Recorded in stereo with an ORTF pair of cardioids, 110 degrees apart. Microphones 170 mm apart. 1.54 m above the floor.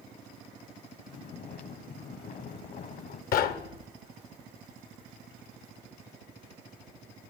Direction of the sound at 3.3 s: 60° left.